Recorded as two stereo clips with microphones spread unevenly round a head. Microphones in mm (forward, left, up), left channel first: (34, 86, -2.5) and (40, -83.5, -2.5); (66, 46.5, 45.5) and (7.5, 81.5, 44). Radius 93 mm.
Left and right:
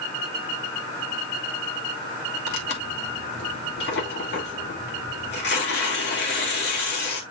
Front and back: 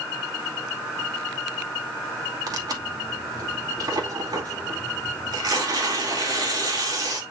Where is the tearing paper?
130° left, 2.5 m.